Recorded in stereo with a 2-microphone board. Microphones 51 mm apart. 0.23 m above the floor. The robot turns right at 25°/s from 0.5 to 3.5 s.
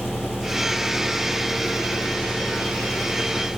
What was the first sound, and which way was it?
An engine running, 120° left.